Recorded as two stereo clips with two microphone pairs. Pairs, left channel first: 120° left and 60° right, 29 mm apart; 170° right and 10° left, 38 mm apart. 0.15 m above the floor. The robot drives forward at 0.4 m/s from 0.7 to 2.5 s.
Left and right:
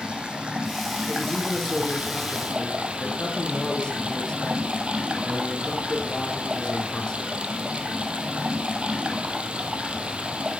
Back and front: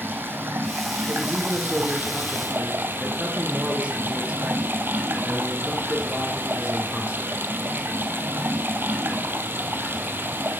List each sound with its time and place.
0.0 s running water: 5° right, 2 m; by 10.6 s 10° right, 1.3 m
1.1 s a man speaking: 50° left, 3 m; by 7.5 s 65° left, 2.5 m